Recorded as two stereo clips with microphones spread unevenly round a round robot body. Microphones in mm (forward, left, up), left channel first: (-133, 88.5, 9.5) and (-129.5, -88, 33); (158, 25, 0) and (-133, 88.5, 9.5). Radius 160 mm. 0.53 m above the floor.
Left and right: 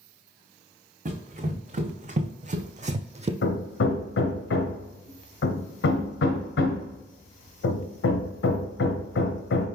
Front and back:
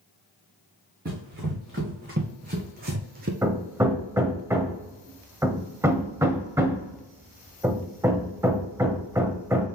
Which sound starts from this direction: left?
Hammering, at 3.4 s.